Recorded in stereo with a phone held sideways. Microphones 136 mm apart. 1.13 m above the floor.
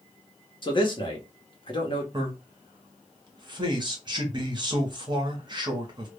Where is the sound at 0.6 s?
35° left (ahead or behind), 0.8 m.